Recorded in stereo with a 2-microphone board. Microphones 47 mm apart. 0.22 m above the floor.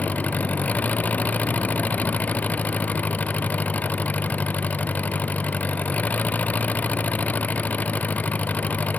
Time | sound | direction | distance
0.0 | an engine running | 35° left (ahead or behind) | ?